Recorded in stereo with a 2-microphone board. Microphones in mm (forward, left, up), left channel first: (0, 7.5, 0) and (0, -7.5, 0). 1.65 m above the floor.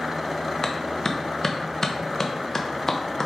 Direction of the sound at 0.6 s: 30° left (ahead or behind).